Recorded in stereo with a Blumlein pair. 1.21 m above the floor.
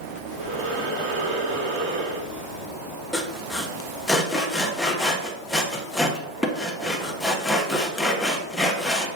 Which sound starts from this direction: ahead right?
Breathing, at 0.3 s.